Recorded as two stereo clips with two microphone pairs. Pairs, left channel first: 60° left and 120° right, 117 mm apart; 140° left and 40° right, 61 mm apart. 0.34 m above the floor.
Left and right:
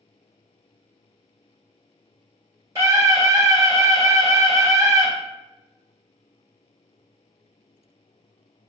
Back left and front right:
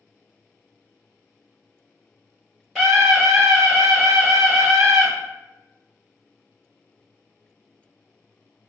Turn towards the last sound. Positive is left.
turn(degrees=-140)